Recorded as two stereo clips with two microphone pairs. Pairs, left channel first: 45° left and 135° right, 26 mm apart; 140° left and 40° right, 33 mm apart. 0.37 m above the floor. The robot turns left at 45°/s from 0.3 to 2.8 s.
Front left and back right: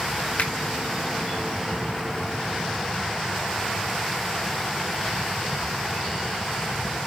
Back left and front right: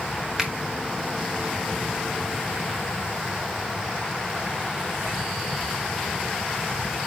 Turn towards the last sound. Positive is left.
turn(degrees=-70)